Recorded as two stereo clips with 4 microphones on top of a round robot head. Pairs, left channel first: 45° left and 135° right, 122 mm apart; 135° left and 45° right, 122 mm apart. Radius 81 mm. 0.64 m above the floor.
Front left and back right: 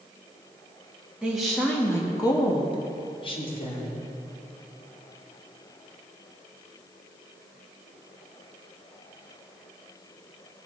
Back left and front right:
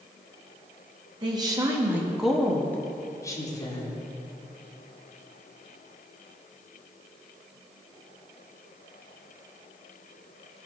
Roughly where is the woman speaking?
Ahead right.